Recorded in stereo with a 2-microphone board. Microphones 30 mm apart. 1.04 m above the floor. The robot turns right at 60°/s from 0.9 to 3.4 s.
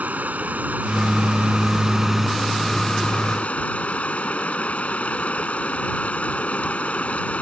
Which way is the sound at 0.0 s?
95° right.